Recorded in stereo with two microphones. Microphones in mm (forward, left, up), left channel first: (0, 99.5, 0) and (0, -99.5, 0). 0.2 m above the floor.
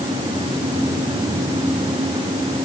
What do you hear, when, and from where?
Only background noise.